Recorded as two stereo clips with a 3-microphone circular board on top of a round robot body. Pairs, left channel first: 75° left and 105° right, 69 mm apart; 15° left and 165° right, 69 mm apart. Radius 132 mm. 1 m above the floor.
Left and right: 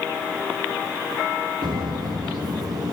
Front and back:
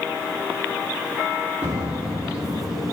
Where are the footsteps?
95° right, 2 m; by 2.9 s 80° right, 3 m.